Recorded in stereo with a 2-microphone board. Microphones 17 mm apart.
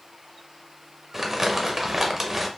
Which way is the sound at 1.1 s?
20° right (ahead or behind).